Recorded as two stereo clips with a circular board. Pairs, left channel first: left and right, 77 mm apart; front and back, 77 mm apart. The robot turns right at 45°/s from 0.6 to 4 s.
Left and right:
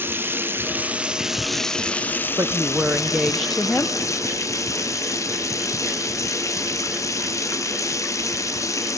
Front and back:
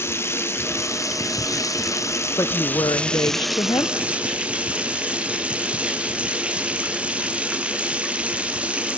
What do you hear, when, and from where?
0.0 s running water: 40° right, 0.8 m; by 9.0 s 110° left, 0.8 m
2.4 s a woman speaking: 45° right, 0.7 m; by 4.0 s 25° left, 0.7 m